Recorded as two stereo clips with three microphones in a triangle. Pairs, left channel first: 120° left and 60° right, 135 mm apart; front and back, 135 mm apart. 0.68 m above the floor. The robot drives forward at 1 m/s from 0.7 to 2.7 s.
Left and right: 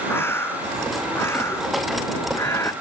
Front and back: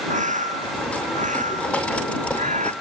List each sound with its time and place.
0.1 s a bird: 170° right